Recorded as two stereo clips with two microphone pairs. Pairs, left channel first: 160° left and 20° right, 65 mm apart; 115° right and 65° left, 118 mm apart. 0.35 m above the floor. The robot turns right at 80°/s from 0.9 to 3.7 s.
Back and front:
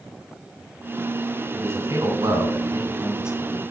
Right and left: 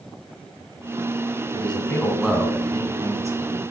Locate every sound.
1.5 s a man speaking: 80° right, 2.5 m; by 3.6 s 85° left, 2.5 m